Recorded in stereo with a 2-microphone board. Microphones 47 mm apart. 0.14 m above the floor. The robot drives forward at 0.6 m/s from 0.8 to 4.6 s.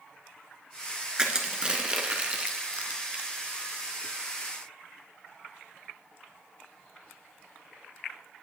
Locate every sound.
1.2 s crushing: 20° right (ahead or behind), 1.5 m; by 3.3 s 25° right (ahead or behind), 1.0 m